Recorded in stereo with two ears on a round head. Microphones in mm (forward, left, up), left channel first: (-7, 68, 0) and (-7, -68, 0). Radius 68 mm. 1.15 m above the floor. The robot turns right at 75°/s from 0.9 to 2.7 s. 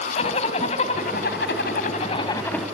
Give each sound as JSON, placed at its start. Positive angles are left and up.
{"t": 0.2, "sound": "a zipper", "azimuth_deg": 45, "distance_m": 3.0}